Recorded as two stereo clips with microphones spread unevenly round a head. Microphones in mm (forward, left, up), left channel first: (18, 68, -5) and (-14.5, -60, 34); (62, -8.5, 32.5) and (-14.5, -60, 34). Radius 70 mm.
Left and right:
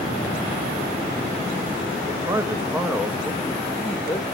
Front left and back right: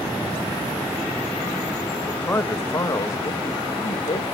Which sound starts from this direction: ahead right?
A man speaking, at 2.1 s.